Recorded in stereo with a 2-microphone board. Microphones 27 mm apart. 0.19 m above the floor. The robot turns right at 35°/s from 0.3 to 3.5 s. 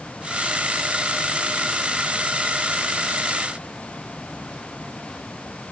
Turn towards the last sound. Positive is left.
No sound to turn to.